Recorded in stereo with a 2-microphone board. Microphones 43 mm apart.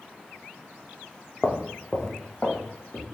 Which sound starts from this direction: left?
Footsteps, at 1.4 s.